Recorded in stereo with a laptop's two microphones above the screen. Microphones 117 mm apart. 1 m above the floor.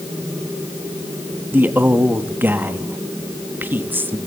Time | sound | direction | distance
1.5 | a man speaking | 15° right (ahead or behind) | 1.1 m